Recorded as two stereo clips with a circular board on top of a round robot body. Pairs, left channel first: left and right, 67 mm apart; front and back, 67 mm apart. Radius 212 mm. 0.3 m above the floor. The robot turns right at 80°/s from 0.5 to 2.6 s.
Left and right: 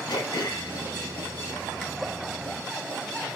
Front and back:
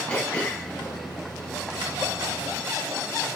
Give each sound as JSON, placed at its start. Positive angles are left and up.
{"t": 0.1, "sound": "throat clearing", "azimuth_deg": 70, "distance_m": 1.3}